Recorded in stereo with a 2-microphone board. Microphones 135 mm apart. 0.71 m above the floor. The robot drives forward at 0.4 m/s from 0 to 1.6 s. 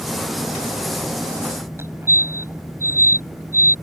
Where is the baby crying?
No baby crying in this recording.